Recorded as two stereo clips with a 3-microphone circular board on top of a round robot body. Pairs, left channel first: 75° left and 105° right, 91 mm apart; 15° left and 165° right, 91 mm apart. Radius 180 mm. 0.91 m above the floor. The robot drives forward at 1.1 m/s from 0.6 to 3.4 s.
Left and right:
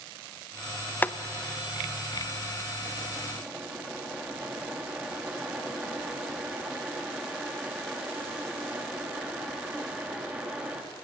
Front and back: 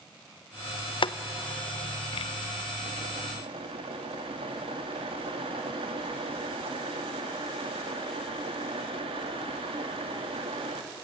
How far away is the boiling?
About 0.8 m.